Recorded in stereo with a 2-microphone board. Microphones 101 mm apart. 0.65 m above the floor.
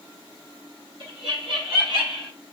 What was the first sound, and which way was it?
Laughter, 65° right (ahead or behind).